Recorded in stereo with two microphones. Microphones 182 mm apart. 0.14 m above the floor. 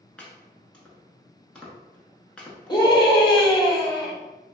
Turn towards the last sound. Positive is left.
turn(degrees=25)  # may be behind; listen again after turning